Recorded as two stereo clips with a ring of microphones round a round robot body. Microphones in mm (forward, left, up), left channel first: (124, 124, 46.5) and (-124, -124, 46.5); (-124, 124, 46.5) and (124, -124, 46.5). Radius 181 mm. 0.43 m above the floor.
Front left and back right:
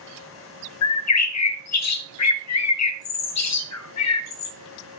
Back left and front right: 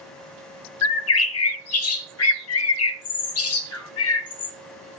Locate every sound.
0.8 s a bird: 90° left, 0.6 m